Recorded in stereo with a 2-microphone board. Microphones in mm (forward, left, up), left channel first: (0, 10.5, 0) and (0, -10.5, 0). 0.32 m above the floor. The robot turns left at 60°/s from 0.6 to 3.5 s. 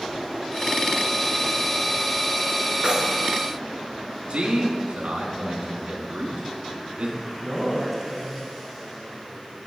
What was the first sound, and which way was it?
Keys jangling, 50° right (ahead or behind).